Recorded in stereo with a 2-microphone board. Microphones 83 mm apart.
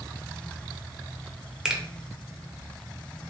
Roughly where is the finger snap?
Centre.